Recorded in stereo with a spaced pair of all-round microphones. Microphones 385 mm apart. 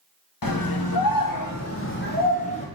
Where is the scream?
60° left (ahead or behind), 0.7 m; by 2.7 s 15° left (ahead or behind), 1.3 m.